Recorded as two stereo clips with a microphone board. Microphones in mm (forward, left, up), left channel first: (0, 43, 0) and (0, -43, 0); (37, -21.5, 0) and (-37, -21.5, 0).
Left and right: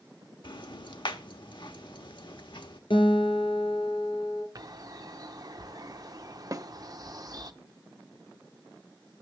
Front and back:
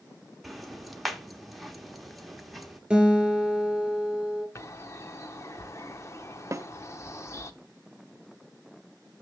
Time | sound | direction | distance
0.4 | ticking | 90° left | 1.1 m
2.9 | a guitar | 100° left | 3 m
4.5 | a bird | 50° right | 0.8 m
6.5 | a snare drum | 135° right | 0.5 m